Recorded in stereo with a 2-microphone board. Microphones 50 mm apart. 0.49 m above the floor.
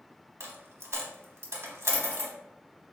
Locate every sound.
0.4 s a dropped coin: 75° right (ahead or behind), 0.7 m